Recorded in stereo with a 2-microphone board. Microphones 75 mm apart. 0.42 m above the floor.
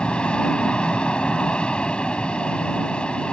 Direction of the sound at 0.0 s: 15° left (ahead or behind).